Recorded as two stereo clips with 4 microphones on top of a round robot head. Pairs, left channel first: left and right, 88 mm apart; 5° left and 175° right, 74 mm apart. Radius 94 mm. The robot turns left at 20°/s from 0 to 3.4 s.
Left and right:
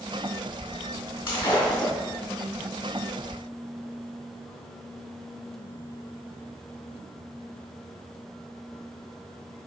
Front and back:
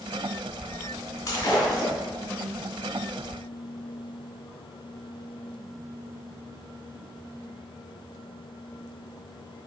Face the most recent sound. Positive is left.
turn(degrees=10)